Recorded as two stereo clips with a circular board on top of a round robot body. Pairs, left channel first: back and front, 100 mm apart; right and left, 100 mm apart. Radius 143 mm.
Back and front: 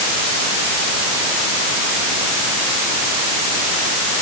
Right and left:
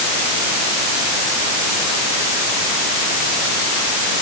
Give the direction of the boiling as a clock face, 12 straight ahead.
I don't hear boiling.